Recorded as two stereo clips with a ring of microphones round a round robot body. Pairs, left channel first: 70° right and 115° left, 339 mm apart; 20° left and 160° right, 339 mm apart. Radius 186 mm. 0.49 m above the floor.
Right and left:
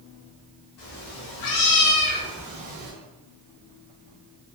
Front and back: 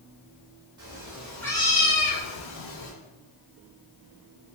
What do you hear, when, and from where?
0.8 s a cat meowing: 80° right, 1.4 m; by 2.9 s 55° left, 1.0 m